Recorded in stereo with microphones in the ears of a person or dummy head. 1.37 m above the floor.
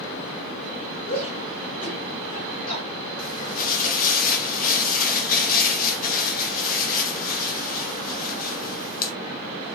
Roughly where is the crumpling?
Left.